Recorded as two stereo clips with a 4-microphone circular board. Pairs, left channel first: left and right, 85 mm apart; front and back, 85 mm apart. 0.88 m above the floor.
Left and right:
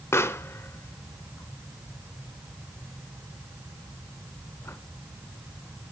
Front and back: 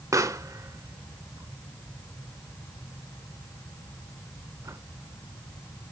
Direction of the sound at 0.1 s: 140° left.